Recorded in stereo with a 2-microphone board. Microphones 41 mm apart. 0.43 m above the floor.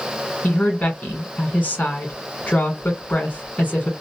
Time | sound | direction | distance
0.4 | a woman speaking | 40° left (ahead or behind) | 1.3 m